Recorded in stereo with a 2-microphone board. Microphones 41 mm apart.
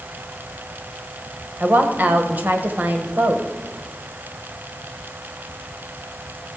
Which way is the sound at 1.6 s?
45° right (ahead or behind).